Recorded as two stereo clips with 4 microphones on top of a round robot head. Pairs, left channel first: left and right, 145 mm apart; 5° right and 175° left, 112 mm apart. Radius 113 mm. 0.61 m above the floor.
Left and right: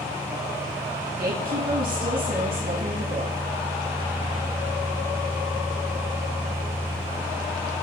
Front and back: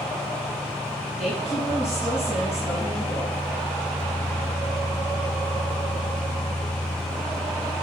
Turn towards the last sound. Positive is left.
turn(degrees=-100)